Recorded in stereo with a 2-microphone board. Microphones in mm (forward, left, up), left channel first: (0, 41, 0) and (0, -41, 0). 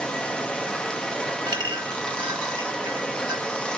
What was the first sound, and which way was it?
Running water, 15° left (ahead or behind).